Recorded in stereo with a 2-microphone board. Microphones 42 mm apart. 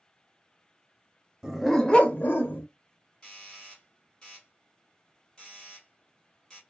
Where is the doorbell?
15° left (ahead or behind), 1.5 m.